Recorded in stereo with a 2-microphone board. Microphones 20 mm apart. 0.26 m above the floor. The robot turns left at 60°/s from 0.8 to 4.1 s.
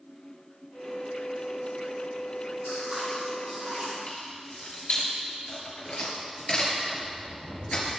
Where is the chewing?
35° right, 5 m; by 3.9 s 110° right, 5 m.